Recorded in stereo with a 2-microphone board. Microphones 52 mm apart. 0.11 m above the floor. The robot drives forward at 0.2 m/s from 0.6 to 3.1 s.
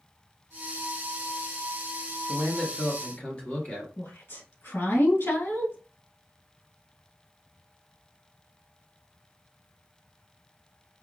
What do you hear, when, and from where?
2.3 s a man speaking: 25° left (ahead or behind), 1.4 m
4.0 s a woman speaking: 60° left (ahead or behind), 2.5 m